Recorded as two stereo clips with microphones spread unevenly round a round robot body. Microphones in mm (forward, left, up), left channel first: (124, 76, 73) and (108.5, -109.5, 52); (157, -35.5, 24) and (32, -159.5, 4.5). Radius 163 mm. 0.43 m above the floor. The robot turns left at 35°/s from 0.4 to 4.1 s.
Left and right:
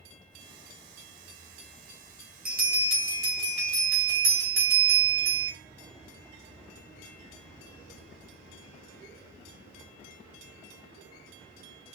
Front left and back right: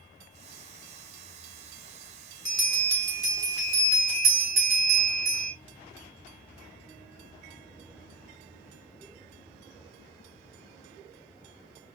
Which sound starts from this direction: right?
A bell, at 2.5 s.